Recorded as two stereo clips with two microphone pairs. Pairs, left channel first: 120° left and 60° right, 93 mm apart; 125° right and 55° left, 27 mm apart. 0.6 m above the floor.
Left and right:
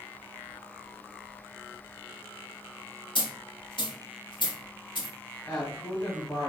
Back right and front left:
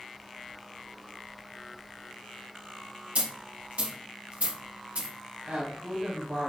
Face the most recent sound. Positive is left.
turn(degrees=50)